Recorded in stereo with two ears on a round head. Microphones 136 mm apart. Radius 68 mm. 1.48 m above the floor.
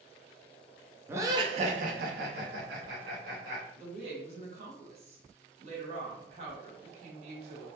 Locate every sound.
1.1 s laughter: 15° right (ahead or behind), 0.5 m; by 3.6 s 70° right (ahead or behind), 1.2 m
3.8 s a woman speaking: 45° right (ahead or behind), 1.1 m